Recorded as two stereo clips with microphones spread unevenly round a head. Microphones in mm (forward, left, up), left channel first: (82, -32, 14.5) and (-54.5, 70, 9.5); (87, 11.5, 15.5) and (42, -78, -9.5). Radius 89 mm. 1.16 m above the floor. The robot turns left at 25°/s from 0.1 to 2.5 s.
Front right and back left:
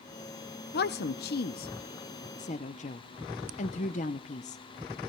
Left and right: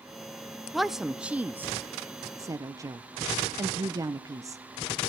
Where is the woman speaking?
35° right, 0.6 m; by 4.6 s 80° right, 0.6 m.